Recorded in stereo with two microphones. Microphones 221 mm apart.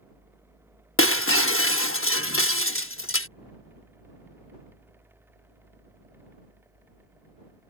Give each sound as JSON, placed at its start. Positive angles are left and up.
{"t": 1.0, "sound": "breaking glass", "side_deg": 70}